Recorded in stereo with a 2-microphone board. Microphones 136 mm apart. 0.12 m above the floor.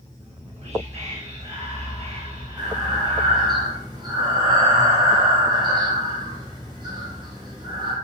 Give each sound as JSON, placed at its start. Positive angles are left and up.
{"t": 0.2, "sound": "whispering", "side_deg": -55, "distance_m": 2.0}
{"t": 2.6, "sound": "breathing", "side_deg": -35, "distance_m": 4.0}